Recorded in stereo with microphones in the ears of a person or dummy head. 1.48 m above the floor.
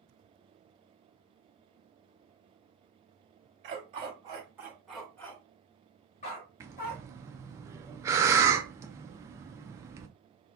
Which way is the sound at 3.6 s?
35° right (ahead or behind).